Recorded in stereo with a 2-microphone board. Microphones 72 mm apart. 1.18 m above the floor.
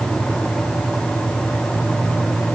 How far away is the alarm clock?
No alarm clock in this recording.